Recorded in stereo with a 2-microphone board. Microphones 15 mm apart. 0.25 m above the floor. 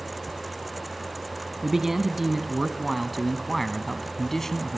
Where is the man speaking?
30° right (ahead or behind), 1.8 m; by 4.8 s 25° left (ahead or behind), 1.7 m.